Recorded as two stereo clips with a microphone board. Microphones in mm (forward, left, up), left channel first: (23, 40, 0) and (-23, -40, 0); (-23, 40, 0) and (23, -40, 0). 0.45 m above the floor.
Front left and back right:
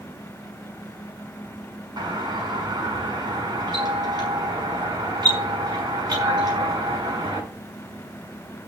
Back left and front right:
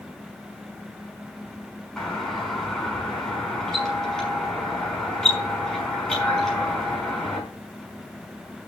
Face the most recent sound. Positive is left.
turn(degrees=-160)